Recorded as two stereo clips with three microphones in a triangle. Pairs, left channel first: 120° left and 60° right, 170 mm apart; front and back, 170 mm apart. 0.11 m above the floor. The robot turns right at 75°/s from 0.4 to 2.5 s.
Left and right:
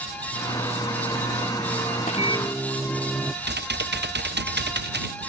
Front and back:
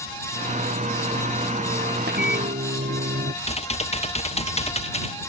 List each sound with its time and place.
2.0 s a microwave: 165° left; by 3.3 s 160° right
3.4 s typing on a keyboard: 50° right